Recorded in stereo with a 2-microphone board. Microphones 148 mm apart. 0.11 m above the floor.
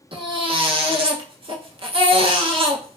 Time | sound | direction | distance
0.1 | a baby crying | 35° right (ahead or behind) | 0.5 m